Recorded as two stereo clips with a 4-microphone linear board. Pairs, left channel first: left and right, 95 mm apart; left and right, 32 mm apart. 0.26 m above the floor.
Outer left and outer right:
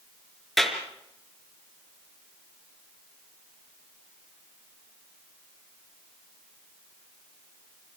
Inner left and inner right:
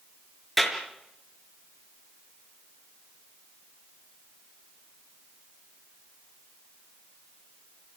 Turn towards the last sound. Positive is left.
turn(degrees=0)  # may be behind; listen again after turning